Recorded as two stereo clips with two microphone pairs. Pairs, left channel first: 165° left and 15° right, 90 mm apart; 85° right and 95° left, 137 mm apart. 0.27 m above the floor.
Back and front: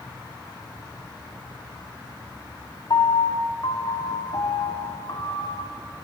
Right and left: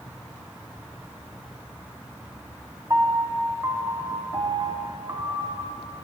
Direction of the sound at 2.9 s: 160° left.